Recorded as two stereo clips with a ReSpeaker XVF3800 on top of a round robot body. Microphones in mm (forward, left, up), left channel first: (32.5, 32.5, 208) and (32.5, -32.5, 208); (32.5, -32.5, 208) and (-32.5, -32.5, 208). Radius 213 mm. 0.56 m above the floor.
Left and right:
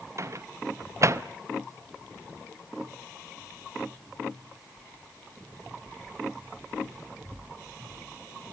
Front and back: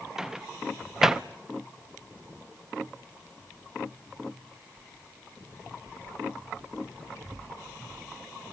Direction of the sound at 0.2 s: 100° right.